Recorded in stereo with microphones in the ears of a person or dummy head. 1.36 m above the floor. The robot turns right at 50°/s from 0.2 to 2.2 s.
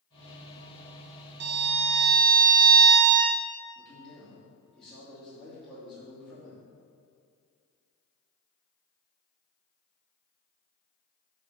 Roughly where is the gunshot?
No gunshot in this recording.